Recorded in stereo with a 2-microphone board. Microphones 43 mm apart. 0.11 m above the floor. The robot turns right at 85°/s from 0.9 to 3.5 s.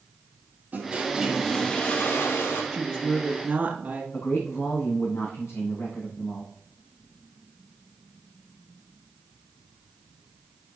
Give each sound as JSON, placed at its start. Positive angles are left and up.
{"t": 0.7, "sound": "a toilet flushing", "azimuth_deg": -40, "distance_m": 2.5}
{"t": 2.7, "sound": "a woman speaking", "azimuth_deg": -170, "distance_m": 1.6}
{"t": 4.1, "sound": "a man speaking", "side_deg": 80, "distance_m": 6.0}